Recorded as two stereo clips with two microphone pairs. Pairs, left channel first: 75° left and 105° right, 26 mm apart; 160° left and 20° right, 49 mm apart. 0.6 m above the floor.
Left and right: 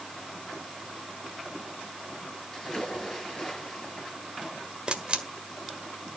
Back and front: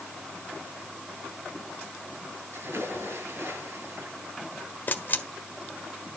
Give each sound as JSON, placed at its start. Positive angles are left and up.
{"t": 2.5, "sound": "a splash", "azimuth_deg": 15, "distance_m": 10.0}
{"t": 4.9, "sound": "a camera shutter", "azimuth_deg": -150, "distance_m": 1.5}